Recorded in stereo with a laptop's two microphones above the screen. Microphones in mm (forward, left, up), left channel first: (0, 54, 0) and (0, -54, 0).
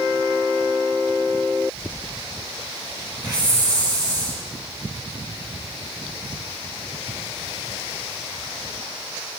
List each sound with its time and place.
3.2 s a hiss: 40° right (ahead or behind), 8.5 m